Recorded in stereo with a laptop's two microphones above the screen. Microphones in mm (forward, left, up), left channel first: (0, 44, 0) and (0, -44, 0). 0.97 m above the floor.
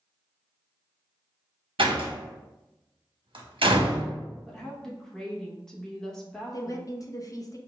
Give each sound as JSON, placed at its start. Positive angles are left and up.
{"t": 1.8, "sound": "a door slam", "side_deg": -80, "distance_m": 0.8}
{"t": 4.5, "sound": "a woman speaking", "side_deg": 5, "distance_m": 0.8}
{"t": 6.5, "sound": "a woman speaking", "side_deg": 40, "distance_m": 0.5}